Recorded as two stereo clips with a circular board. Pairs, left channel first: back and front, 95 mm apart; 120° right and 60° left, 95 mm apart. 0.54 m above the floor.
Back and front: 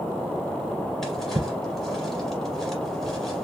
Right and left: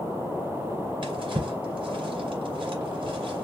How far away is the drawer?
About 2 m.